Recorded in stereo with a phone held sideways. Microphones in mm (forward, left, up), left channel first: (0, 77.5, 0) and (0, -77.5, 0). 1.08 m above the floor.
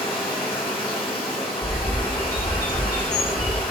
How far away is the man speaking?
No man speaking in this recording.